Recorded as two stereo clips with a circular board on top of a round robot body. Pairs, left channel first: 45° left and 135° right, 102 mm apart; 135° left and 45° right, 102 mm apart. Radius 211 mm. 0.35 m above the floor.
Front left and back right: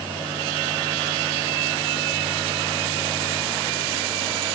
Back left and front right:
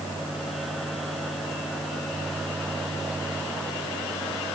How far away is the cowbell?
I don't hear a cowbell.